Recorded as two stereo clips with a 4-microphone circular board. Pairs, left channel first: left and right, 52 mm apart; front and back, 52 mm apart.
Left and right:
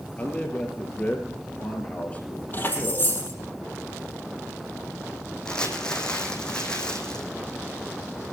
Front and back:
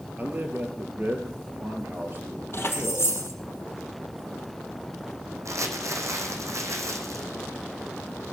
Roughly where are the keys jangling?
Ahead left.